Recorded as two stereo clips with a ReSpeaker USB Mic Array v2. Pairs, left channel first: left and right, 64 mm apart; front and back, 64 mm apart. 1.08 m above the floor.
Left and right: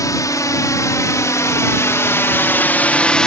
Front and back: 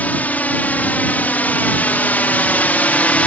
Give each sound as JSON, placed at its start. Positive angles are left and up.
{"t": 0.0, "sound": "a drone", "azimuth_deg": 65}